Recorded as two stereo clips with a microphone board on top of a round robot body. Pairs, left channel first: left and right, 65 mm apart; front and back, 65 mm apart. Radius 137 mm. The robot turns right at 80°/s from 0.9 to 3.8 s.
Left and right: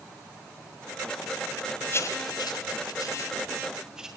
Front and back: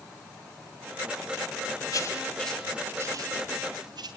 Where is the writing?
40° left, 2.5 m; by 4.1 s 170° right, 2.5 m.